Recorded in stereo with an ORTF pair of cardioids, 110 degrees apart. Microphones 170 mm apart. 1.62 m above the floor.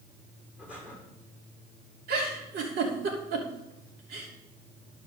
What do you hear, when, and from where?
0.6 s breathing: 5° right, 4.5 m
2.1 s a giggle: 65° right, 3 m